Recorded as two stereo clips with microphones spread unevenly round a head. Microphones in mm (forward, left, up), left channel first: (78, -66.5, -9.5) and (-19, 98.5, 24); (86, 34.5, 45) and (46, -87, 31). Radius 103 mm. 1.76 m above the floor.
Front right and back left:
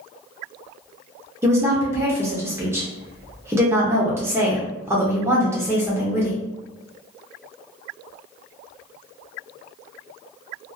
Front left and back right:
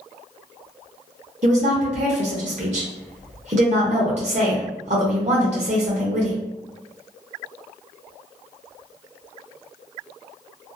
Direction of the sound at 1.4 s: 165° right.